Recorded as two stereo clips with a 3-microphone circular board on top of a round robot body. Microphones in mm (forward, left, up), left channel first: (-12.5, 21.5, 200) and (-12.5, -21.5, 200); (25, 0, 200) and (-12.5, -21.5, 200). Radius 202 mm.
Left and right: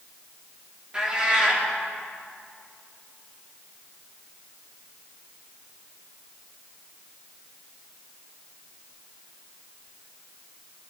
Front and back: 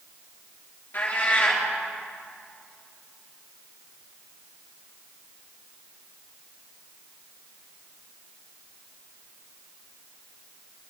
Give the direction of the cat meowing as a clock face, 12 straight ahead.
1 o'clock.